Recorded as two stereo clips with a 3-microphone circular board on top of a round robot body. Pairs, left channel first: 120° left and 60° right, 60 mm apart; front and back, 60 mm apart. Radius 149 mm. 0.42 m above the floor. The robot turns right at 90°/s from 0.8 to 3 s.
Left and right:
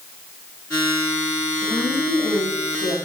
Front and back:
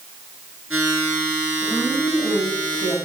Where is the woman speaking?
50° left, 4 m; by 3.0 s 170° left, 4 m.